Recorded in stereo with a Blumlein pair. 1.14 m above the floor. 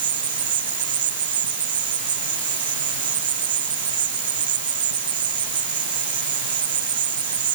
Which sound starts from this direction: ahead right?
An insect, at 0.0 s.